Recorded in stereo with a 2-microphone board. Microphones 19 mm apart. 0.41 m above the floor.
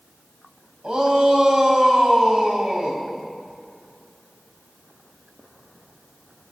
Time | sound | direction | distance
0.8 | a shout | 55° right (ahead or behind) | 2 m